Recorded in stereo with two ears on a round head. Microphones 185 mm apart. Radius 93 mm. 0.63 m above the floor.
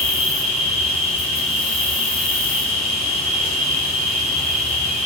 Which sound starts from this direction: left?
An insect, at 0.0 s.